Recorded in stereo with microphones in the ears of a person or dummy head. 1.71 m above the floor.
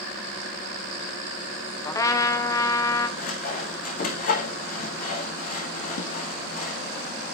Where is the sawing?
50° left (ahead or behind), 3.5 m.